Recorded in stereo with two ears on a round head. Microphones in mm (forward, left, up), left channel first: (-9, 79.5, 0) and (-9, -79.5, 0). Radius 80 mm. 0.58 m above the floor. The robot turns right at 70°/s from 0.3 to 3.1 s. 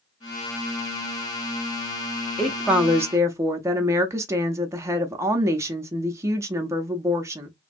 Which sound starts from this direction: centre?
A woman speaking, at 2.4 s.